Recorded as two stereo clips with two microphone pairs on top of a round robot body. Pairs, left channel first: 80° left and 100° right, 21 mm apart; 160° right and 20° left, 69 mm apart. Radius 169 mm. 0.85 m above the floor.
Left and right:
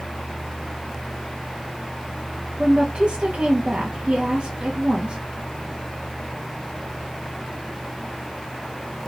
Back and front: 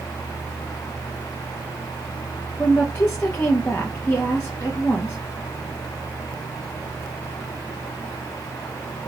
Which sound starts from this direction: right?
A woman speaking, at 2.6 s.